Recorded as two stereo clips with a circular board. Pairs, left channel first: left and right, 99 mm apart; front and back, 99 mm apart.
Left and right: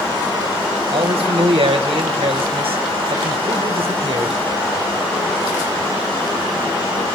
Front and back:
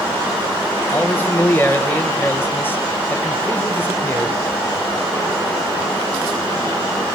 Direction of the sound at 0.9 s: 70° right.